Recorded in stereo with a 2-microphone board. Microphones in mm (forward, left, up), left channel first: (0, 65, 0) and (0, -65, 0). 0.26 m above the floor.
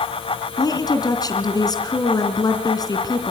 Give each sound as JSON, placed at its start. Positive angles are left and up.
{"t": 0.6, "sound": "a woman speaking", "side_deg": 30, "distance_m": 3.0}